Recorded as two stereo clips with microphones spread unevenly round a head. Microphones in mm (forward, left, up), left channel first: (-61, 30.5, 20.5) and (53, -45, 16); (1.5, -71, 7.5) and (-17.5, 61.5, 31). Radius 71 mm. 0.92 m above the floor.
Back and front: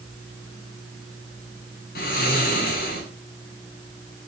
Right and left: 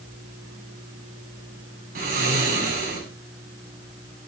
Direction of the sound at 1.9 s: 120° left.